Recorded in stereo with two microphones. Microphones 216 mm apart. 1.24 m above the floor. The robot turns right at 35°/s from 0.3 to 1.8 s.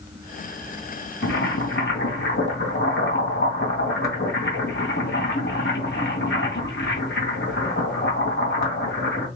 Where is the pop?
I don't hear a pop.